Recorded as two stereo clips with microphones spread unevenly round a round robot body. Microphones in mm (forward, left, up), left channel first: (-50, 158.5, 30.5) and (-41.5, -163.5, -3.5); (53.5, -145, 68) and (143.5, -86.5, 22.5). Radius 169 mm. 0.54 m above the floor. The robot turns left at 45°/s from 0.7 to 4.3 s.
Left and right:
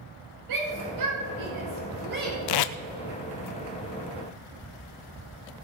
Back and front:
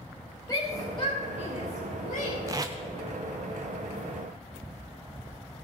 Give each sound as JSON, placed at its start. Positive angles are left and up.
{"t": 0.5, "sound": "a shout", "azimuth_deg": -75, "distance_m": 2.5}
{"t": 2.5, "sound": "tape being pulled", "azimuth_deg": 80, "distance_m": 0.6}